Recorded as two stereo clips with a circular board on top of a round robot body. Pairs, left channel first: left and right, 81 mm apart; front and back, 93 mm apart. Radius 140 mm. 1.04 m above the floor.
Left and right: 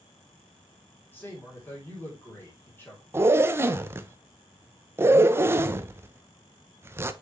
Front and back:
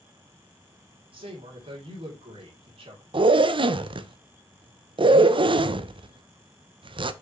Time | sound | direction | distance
1.1 | a man speaking | 155° left | 3 m
3.1 | a zipper | 150° right | 0.7 m